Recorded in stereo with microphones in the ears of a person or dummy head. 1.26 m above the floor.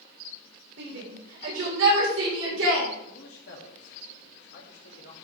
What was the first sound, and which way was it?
A shout, 75° right (ahead or behind).